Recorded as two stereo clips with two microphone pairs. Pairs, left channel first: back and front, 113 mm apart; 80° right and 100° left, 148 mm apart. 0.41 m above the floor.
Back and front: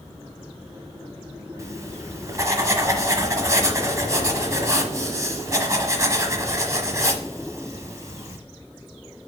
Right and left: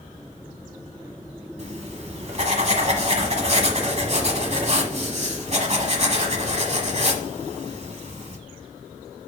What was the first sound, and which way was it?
Writing, 60° left.